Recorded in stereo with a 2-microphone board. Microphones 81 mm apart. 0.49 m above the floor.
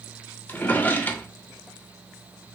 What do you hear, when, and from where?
0.5 s a drawer: 20° left (ahead or behind), 0.5 m